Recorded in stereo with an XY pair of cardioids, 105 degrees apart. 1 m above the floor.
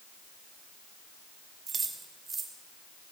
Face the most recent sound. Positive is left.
turn(degrees=-35)